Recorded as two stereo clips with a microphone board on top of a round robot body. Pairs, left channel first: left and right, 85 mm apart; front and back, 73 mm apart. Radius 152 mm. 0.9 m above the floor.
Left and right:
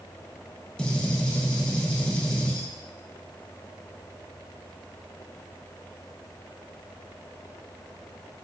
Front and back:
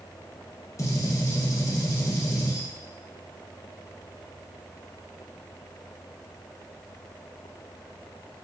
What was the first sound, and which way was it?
A gunshot, 15° left.